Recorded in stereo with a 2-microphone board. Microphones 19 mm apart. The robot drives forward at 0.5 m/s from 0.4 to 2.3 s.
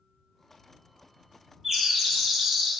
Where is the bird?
20° right (ahead or behind), 1.5 m.